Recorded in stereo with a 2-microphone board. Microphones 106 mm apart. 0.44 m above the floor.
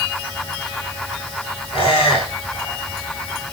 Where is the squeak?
60° left (ahead or behind), 1.6 m.